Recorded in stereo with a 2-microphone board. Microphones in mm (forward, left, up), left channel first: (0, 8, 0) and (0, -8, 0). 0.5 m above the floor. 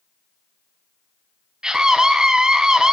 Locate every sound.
1.6 s a scream: 45° right (ahead or behind), 3.5 m